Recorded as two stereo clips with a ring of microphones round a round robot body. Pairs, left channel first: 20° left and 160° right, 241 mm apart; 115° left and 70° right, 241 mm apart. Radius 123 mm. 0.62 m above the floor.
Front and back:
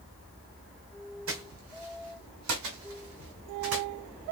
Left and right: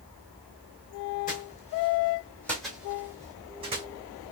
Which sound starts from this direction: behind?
Footsteps, at 1.3 s.